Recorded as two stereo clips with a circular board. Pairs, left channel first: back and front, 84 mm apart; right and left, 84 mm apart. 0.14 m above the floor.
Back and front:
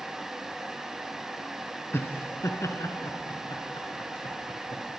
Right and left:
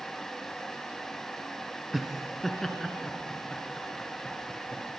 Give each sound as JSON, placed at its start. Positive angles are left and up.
{"t": 1.9, "sound": "laughter", "azimuth_deg": 180, "distance_m": 1.4}